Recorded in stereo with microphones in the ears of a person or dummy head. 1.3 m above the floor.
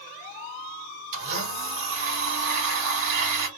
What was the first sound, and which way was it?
A blender, 65° right (ahead or behind).